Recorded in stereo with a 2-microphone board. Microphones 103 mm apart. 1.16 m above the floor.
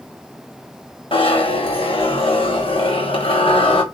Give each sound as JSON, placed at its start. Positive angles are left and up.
{"t": 1.1, "sound": "a zipper", "side_deg": 60, "distance_m": 1.2}